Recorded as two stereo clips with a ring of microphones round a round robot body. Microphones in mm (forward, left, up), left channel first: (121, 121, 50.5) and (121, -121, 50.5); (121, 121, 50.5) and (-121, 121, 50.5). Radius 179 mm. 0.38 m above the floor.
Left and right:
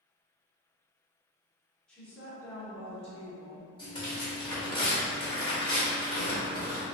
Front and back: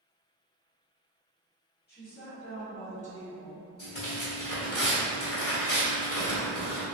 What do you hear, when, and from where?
1.9 s a woman speaking: 5° left, 1.6 m; by 3.7 s 60° left, 1.6 m
3.8 s tearing paper: 25° left, 1.6 m